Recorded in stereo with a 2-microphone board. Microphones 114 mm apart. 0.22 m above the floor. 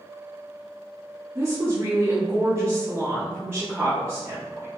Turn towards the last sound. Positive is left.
turn(degrees=-20)  # may be behind; listen again after turning